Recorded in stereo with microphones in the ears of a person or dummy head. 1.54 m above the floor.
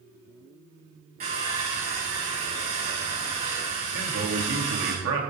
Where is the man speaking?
65° right (ahead or behind), 2.5 m.